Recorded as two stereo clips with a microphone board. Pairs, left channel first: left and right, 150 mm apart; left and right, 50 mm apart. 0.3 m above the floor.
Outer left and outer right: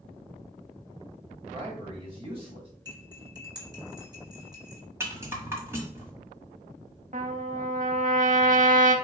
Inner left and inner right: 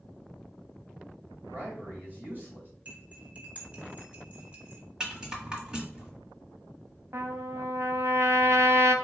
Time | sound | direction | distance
1.5 | a man speaking | 35° right (ahead or behind) | 1.7 m
2.9 | cutlery clinking | 25° right (ahead or behind) | 1.7 m
5.0 | a rattle | 15° right (ahead or behind) | 1.2 m
7.1 | a trumpet | 60° right (ahead or behind) | 0.6 m